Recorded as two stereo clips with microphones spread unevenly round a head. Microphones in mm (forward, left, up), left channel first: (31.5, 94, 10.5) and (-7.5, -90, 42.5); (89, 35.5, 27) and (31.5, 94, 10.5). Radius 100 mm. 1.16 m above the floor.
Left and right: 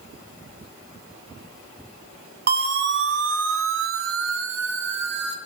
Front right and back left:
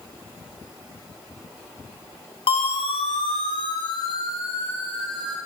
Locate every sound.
2.5 s a siren: 65° right, 3 m; by 5.4 s 140° right, 3.5 m